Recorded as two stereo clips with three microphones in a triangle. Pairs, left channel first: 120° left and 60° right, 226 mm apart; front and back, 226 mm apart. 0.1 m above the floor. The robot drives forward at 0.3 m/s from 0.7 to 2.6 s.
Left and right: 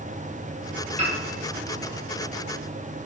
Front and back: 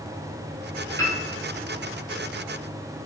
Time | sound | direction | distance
1.0 | a piano | 60° right | 0.9 m